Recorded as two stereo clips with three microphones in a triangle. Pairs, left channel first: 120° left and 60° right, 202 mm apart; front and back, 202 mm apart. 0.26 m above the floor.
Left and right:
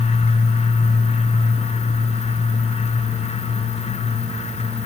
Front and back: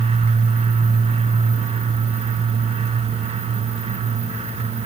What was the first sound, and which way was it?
Only background noise.